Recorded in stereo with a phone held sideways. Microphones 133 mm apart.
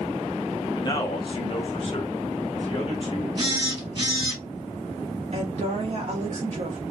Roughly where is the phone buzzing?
Right.